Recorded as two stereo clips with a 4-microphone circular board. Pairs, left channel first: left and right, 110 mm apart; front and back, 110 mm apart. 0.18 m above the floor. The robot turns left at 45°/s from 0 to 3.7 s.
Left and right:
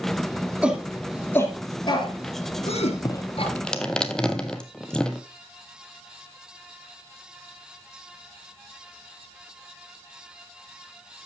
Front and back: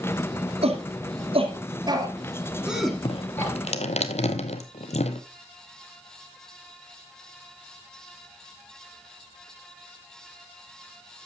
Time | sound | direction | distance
0.6 | a shout | 165° right | 3 m
3.0 | dripping | 35° left | 1.0 m